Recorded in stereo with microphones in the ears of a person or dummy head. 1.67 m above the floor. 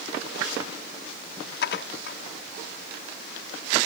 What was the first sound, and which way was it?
Dishes clattering, 70° left (ahead or behind).